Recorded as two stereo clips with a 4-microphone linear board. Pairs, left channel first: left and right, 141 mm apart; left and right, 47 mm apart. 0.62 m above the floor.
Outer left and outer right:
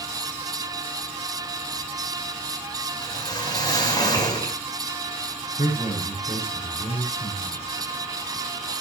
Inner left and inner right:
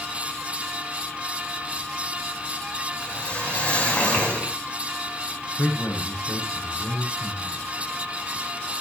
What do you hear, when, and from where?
3.0 s a whoosh: 25° left (ahead or behind), 5.5 m
5.6 s a man speaking: 55° left (ahead or behind), 10 m